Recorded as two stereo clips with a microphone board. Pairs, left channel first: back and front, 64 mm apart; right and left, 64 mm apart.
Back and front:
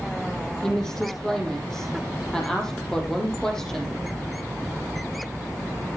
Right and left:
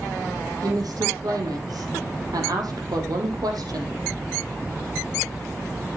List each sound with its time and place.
0.6 s a woman speaking: 100° left, 4.5 m